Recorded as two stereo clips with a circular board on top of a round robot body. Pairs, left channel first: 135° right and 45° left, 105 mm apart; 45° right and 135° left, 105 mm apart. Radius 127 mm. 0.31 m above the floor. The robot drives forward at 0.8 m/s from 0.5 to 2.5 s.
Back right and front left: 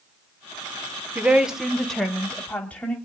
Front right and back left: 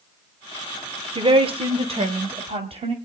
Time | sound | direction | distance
1.1 | a woman speaking | 115° left | 1.4 m